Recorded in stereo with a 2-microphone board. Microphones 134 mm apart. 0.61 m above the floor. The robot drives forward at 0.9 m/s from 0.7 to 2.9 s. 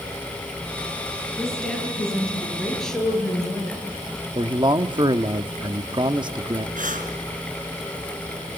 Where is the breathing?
80° right, 3 m.